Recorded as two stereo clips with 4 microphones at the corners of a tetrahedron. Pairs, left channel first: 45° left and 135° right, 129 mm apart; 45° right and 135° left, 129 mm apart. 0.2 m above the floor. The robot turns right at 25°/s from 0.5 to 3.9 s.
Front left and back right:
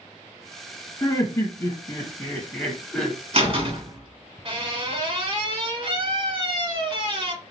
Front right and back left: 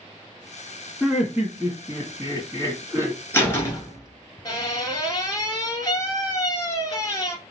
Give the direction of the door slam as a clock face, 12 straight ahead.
4 o'clock.